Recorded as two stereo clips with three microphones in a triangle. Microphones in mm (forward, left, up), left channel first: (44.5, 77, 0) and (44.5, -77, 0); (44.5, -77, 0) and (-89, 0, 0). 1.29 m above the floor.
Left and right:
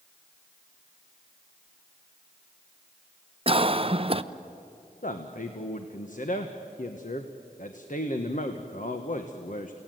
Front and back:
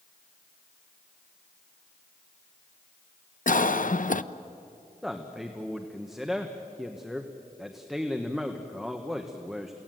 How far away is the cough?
About 0.8 m.